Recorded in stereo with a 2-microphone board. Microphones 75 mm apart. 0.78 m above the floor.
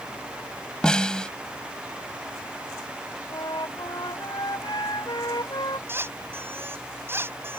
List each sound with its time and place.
0.8 s a snare drum: 10° left (ahead or behind)
3.3 s a flute: 70° left (ahead or behind)
5.9 s a squeak: 35° right (ahead or behind)